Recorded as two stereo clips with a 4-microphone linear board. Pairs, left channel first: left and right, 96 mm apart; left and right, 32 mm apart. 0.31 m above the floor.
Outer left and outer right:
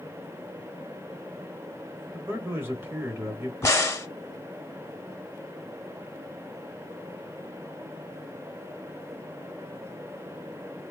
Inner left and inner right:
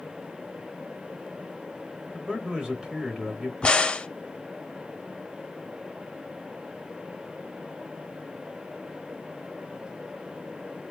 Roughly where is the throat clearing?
I don't hear throat clearing.